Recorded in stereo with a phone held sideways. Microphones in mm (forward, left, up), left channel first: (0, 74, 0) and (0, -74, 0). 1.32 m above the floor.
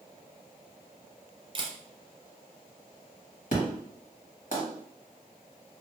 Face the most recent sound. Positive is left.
turn(degrees=65)  # may be behind; listen again after turning